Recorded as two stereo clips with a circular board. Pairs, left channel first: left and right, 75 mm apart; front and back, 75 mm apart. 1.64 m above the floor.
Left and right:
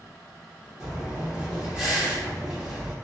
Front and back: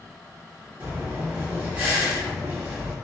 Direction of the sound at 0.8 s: 155° right.